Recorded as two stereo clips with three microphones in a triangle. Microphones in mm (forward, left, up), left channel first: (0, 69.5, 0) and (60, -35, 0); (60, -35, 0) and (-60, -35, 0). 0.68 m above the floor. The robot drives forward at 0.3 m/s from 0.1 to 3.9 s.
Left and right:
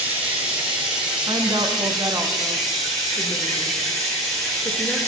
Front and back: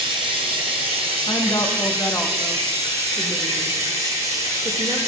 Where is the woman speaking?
25° right, 0.8 m; by 5.0 s 145° right, 0.7 m.